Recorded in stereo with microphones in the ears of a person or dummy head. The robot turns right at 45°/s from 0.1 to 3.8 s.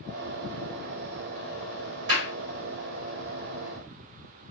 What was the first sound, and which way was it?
A clap, 55° right (ahead or behind).